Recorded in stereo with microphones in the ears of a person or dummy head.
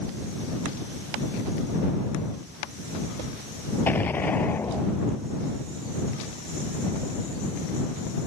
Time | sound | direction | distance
3.9 | an explosion | 15° left (ahead or behind) | ?